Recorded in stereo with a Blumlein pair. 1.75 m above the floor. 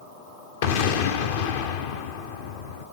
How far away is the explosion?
About 1.0 m.